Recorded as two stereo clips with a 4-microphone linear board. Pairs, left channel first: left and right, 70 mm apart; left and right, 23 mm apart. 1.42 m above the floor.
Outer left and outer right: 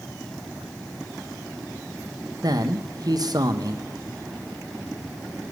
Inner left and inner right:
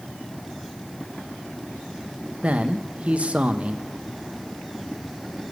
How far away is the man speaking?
About 1.1 m.